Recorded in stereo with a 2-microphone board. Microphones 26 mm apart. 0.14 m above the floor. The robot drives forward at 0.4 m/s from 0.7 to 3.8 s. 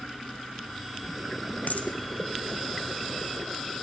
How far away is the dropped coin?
About 2 m.